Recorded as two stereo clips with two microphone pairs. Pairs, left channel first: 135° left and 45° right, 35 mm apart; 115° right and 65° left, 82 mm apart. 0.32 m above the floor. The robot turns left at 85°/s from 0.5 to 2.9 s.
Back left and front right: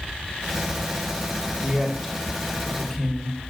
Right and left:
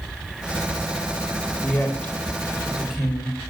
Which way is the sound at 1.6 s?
110° right.